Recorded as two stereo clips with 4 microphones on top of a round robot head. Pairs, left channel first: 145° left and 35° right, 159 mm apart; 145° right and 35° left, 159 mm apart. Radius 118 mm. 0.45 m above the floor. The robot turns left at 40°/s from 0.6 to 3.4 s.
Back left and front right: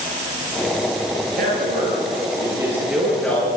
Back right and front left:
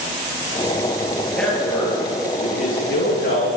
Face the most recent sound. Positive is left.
turn(degrees=-140)